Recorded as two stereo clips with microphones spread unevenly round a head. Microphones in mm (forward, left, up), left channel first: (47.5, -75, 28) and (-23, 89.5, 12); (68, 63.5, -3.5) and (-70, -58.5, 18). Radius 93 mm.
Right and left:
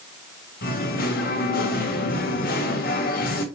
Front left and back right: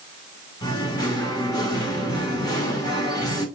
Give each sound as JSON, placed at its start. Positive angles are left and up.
{"t": 0.6, "sound": "singing", "azimuth_deg": -30, "distance_m": 1.4}